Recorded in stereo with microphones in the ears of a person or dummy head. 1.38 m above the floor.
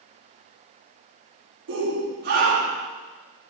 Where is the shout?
60° right (ahead or behind), 3.5 m; by 2.9 s 40° right (ahead or behind), 3.5 m.